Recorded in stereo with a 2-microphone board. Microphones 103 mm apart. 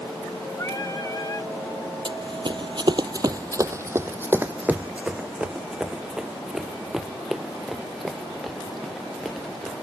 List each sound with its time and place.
0.6 s singing: 35° left (ahead or behind)
2.0 s running footsteps: 55° right (ahead or behind); by 9.7 s centre (ahead or behind)